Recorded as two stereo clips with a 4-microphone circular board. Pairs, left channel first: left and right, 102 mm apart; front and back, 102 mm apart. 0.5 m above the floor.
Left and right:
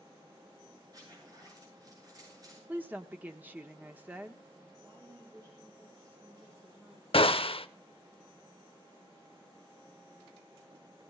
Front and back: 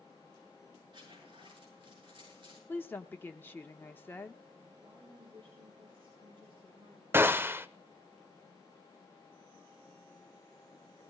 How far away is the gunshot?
About 0.6 m.